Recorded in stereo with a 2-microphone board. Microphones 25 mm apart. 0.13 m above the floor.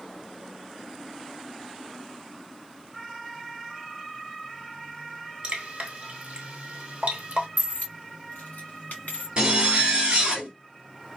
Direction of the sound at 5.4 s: 55° right (ahead or behind).